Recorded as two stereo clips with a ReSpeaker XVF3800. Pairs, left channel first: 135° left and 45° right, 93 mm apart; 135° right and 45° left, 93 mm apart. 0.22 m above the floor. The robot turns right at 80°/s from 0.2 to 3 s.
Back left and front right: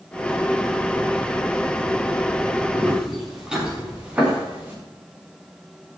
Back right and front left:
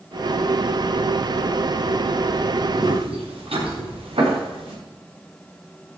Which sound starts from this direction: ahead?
Footsteps, at 2.7 s.